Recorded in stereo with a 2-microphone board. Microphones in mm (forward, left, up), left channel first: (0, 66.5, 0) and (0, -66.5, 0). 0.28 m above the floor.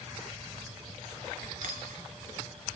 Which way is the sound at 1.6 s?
80° right.